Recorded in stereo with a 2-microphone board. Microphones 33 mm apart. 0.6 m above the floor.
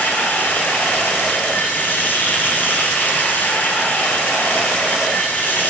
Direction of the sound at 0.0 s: 65° left (ahead or behind).